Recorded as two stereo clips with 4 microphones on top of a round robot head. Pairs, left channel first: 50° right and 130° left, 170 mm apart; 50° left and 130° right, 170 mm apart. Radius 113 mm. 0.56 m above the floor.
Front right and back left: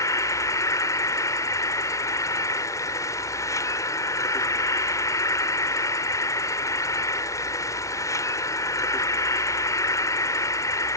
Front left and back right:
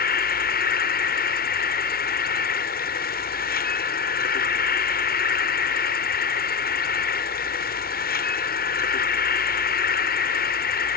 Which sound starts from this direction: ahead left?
An insect, at 0.0 s.